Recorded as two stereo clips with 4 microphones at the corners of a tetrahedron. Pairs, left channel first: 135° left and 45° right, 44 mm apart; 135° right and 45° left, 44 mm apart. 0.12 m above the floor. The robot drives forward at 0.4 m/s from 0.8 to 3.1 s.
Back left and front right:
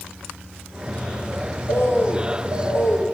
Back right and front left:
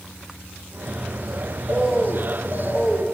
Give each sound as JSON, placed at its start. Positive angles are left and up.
{"t": 1.7, "sound": "a bird", "azimuth_deg": 105, "distance_m": 4.5}